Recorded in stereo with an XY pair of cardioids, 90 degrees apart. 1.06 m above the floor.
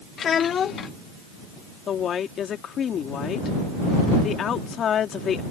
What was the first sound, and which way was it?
A child speaking, 60° left.